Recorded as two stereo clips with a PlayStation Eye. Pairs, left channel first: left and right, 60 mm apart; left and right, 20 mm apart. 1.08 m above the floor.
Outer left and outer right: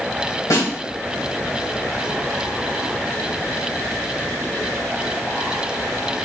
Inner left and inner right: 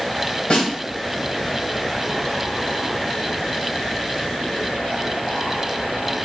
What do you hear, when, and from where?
0.5 s a snare drum: 65° left (ahead or behind), 1.8 m